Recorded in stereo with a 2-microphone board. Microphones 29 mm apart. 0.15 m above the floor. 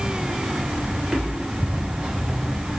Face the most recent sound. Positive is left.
turn(degrees=-15)  # may be behind; listen again after turning